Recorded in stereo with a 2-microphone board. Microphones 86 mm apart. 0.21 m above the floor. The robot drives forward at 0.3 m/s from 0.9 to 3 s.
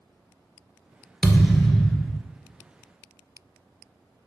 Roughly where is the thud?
Centre.